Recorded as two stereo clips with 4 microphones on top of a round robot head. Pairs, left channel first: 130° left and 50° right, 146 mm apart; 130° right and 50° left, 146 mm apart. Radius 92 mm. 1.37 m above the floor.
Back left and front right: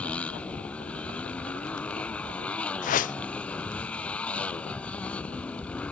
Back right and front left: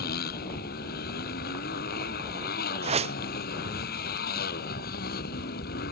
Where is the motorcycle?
150° right.